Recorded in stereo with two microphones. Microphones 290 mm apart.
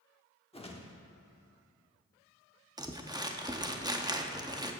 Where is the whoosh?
20° left (ahead or behind), 1.1 m.